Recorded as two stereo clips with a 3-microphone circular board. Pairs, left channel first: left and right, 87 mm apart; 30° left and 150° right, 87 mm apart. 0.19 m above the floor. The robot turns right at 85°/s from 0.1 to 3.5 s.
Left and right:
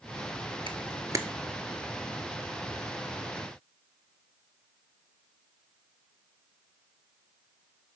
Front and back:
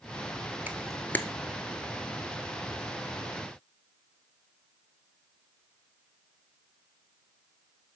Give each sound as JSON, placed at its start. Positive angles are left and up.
{"t": 0.7, "sound": "a camera shutter", "azimuth_deg": -80, "distance_m": 0.6}